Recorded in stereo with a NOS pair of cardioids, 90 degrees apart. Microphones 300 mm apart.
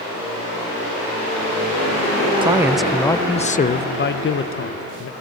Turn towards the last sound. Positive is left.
turn(degrees=50)